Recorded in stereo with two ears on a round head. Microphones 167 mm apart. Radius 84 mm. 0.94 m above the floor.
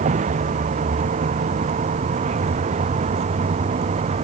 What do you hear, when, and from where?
0.0 s a vehicle: 40° right (ahead or behind)